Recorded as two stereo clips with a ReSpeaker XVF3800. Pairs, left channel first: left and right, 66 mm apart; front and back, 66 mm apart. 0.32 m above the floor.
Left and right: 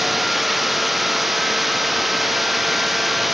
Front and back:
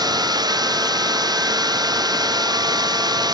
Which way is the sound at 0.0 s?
Straight behind.